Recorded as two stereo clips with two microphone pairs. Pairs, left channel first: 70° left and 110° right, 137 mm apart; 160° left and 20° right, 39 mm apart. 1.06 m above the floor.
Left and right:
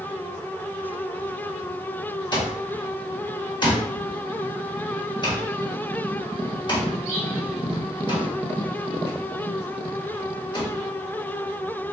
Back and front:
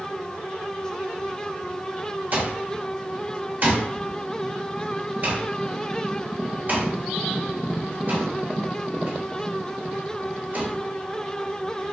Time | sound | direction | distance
2.3 | an alarm clock | 20° left | 1.1 m